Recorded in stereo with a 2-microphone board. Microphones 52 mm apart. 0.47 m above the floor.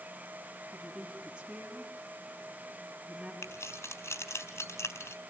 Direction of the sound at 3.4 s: 70° left (ahead or behind).